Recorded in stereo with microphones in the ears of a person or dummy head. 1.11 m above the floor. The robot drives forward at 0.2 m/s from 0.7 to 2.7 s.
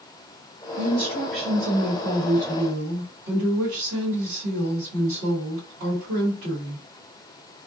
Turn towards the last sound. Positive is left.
turn(degrees=-40)  # may be behind; listen again after turning